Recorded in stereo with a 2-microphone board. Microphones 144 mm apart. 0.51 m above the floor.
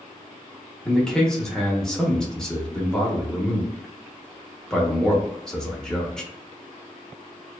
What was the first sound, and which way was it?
A man speaking, 5° left (ahead or behind).